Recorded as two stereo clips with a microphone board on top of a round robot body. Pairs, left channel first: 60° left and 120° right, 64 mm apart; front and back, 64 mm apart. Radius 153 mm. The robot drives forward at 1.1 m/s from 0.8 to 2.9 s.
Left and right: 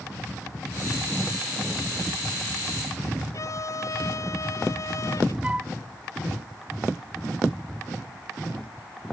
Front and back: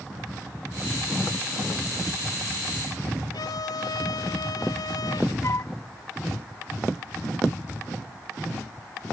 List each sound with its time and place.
3.3 s a violin: 20° left
5.4 s a flute: 45° right